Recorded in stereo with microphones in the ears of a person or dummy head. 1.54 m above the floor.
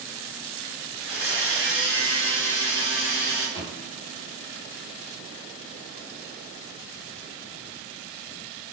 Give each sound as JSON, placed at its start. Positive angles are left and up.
{"t": 1.0, "sound": "a blender", "side_deg": 40, "distance_m": 1.3}
{"t": 3.5, "sound": "a thud", "side_deg": 20, "distance_m": 1.1}